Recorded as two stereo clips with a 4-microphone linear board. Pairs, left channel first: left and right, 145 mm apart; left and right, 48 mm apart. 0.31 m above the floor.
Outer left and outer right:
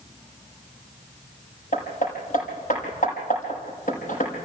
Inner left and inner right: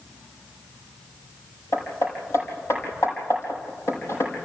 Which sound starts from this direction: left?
Hammering, at 1.7 s.